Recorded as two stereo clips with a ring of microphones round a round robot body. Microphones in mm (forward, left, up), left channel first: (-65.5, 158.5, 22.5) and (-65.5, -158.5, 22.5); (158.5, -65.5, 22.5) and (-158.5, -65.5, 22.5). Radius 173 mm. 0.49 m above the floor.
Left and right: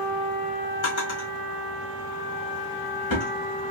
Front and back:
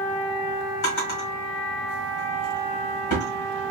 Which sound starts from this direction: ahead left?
A drawer, at 0.8 s.